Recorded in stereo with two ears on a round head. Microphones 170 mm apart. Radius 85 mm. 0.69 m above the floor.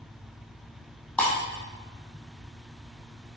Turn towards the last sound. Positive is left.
turn(degrees=5)  # may be behind; listen again after turning